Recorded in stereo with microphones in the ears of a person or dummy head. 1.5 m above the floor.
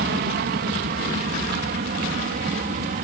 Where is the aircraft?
50° right (ahead or behind); by 3.0 s 45° right (ahead or behind).